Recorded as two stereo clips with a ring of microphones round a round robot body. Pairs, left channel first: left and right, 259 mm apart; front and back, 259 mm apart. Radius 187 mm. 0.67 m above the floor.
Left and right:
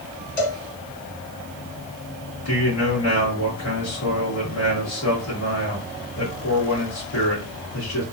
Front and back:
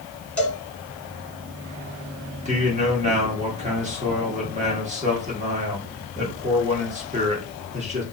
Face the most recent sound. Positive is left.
turn(degrees=115)